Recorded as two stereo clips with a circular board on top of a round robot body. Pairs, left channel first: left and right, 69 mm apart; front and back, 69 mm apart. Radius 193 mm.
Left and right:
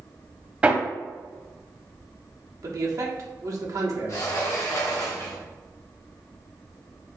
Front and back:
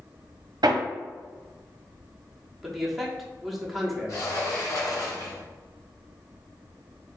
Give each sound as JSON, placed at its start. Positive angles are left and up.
{"t": 0.6, "sound": "hammering", "azimuth_deg": -160, "distance_m": 0.8}
{"t": 2.6, "sound": "a man speaking", "azimuth_deg": -90, "distance_m": 1.2}
{"t": 4.1, "sound": "a sliding door", "azimuth_deg": 45, "distance_m": 0.9}